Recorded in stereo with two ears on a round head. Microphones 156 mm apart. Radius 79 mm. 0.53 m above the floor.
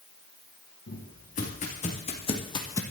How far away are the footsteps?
About 4 m.